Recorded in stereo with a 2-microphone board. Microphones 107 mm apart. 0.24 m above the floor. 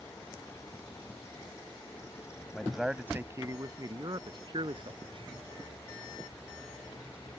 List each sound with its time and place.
2.5 s a man speaking: 10° left (ahead or behind); by 5.3 s 55° right (ahead or behind)